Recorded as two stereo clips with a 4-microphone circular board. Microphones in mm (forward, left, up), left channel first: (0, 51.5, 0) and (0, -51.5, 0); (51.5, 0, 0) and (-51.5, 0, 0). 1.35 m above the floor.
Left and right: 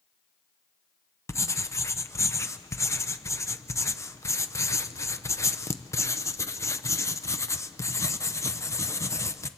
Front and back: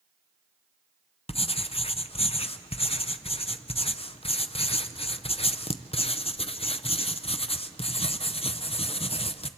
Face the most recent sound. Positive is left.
turn(degrees=25)